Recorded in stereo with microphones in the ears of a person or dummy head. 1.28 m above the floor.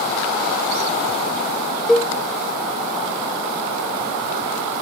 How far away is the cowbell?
About 0.5 m.